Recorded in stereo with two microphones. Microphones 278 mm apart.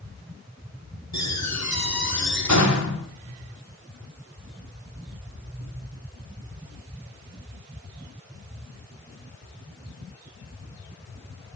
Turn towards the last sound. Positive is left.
turn(degrees=65)  # may be behind; listen again after turning